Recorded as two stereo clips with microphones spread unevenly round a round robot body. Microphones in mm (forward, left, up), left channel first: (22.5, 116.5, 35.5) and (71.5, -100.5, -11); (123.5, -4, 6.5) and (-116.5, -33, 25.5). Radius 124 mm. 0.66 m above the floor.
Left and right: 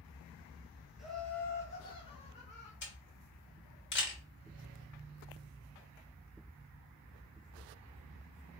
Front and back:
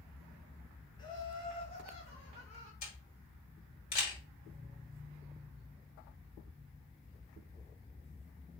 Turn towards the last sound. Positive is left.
turn(degrees=65)